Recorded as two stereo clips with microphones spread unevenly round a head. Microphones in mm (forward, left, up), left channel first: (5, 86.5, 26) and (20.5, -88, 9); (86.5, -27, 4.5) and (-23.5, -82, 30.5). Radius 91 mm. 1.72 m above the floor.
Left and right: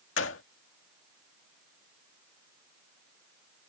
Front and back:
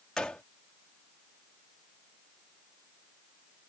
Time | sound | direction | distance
0.2 | a gunshot | 115° left | ?